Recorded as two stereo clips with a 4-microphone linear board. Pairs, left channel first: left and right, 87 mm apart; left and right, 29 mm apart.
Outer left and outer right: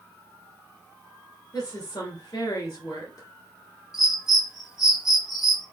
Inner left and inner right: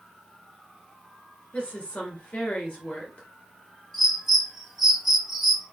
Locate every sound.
1.5 s a woman speaking: 45° left (ahead or behind), 2.5 m
3.9 s a bird: 5° right (ahead or behind), 1.2 m